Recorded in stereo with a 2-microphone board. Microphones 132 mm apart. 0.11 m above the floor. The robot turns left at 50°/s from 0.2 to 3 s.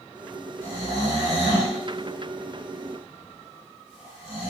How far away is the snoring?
About 1.8 m.